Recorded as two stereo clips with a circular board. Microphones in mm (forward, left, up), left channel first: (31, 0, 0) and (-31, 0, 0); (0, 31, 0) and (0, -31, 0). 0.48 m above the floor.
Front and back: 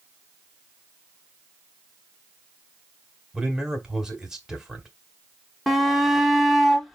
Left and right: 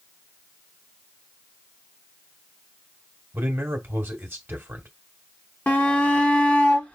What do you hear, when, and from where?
3.3 s a man speaking: 110° right, 1.1 m
5.7 s a shout: 90° left, 0.9 m